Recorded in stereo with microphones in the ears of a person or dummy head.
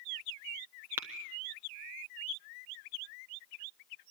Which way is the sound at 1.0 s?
10° right (ahead or behind).